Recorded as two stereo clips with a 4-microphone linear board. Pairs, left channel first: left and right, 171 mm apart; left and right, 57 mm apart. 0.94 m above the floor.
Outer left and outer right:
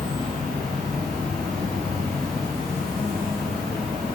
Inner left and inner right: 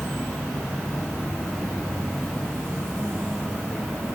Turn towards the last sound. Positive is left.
turn(degrees=5)  # may be behind; listen again after turning